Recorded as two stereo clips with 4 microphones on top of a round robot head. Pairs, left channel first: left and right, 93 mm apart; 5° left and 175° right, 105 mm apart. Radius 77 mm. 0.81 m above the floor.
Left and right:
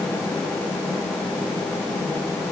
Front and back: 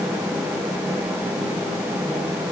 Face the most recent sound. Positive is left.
No sound to turn to.